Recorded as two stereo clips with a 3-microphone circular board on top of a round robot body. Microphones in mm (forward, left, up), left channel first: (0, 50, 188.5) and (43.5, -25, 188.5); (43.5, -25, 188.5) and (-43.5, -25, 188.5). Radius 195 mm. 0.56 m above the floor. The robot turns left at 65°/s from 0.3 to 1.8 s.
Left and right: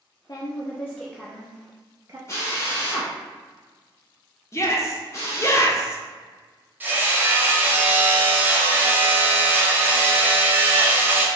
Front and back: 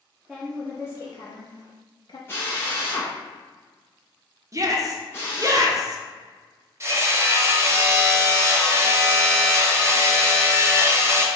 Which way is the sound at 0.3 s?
90° left.